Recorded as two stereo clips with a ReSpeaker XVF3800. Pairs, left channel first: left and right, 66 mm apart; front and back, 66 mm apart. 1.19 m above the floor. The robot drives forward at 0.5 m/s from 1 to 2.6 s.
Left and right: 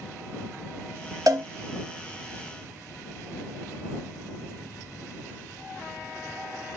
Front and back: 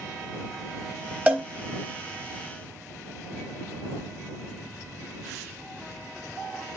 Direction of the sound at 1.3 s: 110° right.